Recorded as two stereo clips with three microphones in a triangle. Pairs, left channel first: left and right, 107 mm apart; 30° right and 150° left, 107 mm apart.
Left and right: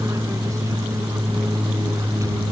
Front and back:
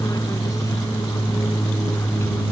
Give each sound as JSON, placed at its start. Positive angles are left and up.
{"t": 0.0, "sound": "an aircraft", "azimuth_deg": -55}